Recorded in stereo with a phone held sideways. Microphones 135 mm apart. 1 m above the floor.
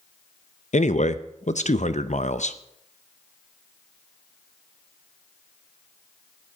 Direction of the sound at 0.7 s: 70° left (ahead or behind).